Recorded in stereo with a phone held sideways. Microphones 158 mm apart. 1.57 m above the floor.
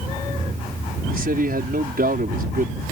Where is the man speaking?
70° right (ahead or behind).